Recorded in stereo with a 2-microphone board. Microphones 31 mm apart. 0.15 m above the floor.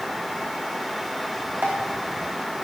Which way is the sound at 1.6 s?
60° right (ahead or behind).